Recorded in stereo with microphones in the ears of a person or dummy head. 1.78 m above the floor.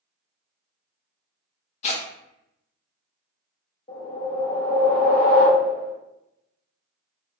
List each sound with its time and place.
1.8 s tearing paper: 45° left (ahead or behind), 0.6 m
3.9 s a whoosh: 45° left (ahead or behind), 0.9 m